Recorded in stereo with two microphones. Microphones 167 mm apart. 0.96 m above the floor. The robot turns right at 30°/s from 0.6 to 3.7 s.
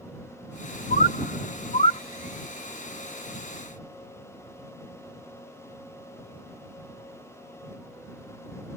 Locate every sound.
0.9 s a bird: 65° left (ahead or behind); by 2.0 s 40° left (ahead or behind)